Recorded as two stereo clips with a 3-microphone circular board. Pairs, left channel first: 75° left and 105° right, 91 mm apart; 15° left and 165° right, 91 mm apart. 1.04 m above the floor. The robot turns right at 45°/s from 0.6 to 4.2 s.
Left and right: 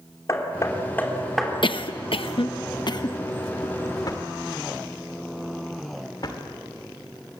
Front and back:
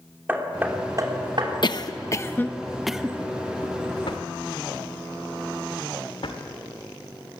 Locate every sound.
0.3 s hammering: 125° left, 3 m; by 1.5 s 170° left, 3 m
1.6 s a cough: 50° left, 0.7 m; by 3.2 s 120° left, 0.7 m
4.1 s a drawer: 30° left, 1.8 m; by 6.4 s 35° left, 1.8 m